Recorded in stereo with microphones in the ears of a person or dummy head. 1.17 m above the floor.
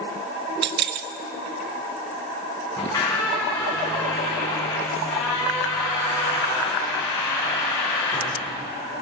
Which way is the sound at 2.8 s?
15° left (ahead or behind).